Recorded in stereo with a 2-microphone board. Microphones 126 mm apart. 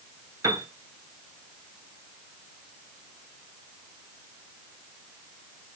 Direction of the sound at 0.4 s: 30° right (ahead or behind).